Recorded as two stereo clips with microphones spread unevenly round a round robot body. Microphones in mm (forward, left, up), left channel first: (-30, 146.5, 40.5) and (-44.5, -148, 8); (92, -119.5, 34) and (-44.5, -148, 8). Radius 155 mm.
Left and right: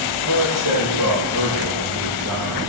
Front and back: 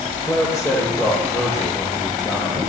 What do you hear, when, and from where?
0.2 s a man speaking: 55° right, 7 m